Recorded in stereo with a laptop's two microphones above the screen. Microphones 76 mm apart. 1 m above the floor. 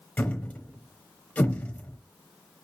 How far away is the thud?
About 0.9 m.